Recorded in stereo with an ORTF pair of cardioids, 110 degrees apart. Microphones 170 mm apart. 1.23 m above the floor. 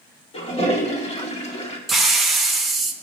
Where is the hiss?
Straight ahead, 1.4 m.